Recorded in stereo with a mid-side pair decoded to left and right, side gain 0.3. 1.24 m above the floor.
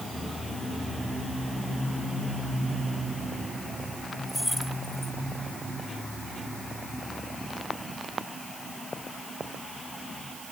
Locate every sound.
4.3 s keys jangling: 5° left